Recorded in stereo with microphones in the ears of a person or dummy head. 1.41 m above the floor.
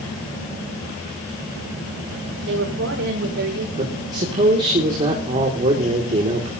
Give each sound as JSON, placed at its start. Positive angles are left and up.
{"t": 2.5, "sound": "a woman speaking", "side_deg": -85, "distance_m": 4.5}
{"t": 3.8, "sound": "a man speaking", "side_deg": -40, "distance_m": 2.0}